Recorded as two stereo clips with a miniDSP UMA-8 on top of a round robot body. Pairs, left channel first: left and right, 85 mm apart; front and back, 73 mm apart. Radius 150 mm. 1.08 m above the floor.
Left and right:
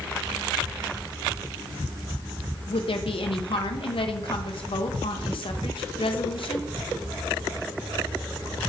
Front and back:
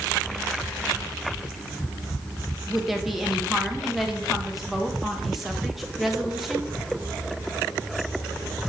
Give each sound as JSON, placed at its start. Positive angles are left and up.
{"t": 2.7, "sound": "a woman speaking", "azimuth_deg": 90, "distance_m": 1.5}